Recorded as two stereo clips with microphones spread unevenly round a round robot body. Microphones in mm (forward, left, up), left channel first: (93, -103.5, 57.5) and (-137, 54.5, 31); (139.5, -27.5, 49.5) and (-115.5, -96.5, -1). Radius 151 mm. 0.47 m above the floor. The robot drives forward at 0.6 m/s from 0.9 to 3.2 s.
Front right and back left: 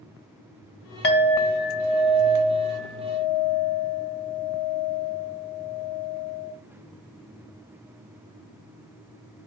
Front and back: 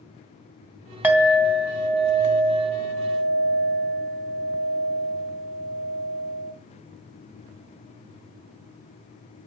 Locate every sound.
1.0 s a clink: 85° right, 2 m; by 6.5 s 120° right, 2.5 m